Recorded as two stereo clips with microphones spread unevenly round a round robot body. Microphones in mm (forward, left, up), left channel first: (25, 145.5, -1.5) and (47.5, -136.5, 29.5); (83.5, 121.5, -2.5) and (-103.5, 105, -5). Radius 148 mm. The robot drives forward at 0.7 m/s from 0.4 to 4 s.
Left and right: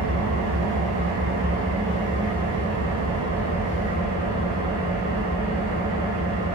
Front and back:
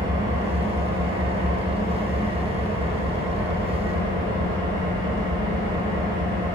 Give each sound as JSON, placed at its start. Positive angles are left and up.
{"t": 0.0, "sound": "an engine running", "azimuth_deg": -140, "distance_m": 1.5}